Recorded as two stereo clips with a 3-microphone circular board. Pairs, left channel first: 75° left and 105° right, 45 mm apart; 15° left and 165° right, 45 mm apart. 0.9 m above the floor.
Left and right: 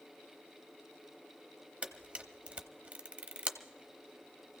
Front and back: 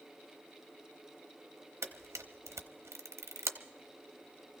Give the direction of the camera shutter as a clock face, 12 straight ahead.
6 o'clock.